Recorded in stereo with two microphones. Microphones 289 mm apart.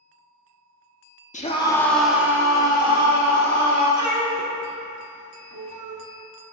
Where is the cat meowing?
80° right, 0.8 m.